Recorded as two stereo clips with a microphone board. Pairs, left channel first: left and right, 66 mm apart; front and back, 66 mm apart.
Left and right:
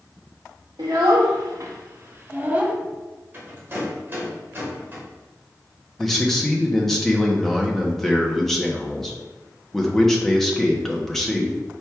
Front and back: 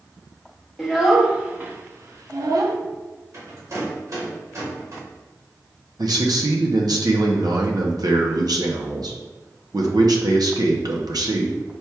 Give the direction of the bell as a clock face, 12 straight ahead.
I don't hear a bell.